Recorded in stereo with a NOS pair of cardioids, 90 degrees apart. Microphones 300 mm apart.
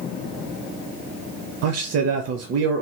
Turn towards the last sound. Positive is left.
turn(degrees=-55)